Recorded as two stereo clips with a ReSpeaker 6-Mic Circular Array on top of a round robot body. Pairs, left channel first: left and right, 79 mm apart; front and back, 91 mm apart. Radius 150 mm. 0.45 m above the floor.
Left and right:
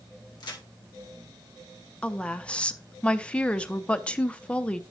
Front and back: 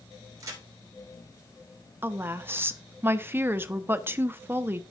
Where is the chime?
I don't hear a chime.